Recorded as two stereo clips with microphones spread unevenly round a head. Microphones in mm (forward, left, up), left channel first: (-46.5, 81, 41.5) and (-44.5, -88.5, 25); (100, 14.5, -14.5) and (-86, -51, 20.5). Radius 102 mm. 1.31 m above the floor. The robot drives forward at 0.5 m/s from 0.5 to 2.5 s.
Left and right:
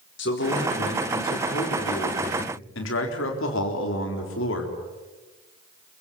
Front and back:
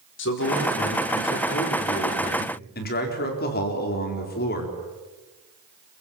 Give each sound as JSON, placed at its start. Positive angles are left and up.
{"t": 0.2, "sound": "a man speaking", "azimuth_deg": 55, "distance_m": 4.5}